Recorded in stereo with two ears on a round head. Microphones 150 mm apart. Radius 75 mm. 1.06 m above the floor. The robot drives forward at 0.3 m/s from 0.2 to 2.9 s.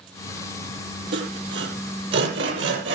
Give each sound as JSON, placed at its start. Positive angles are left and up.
{"t": 1.1, "sound": "sawing", "side_deg": -75, "distance_m": 9.5}